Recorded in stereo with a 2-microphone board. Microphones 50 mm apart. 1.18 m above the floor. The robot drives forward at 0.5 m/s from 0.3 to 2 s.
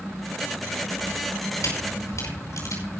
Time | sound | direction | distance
1.6 | a camera shutter | 85° left | 5.5 m